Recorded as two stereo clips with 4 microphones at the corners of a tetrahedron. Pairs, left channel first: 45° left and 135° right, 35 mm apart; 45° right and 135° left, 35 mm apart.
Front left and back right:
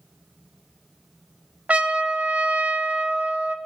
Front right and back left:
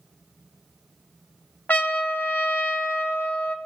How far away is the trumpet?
About 0.7 m.